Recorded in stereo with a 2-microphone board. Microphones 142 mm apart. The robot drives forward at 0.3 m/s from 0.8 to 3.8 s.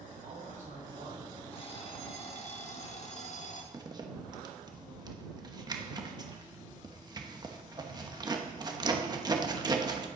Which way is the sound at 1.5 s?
40° left (ahead or behind).